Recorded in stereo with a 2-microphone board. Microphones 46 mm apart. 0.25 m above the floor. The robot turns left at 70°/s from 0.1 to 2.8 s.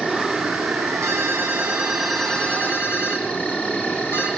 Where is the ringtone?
105° right, 5 m; by 4.3 s 130° left, 5 m.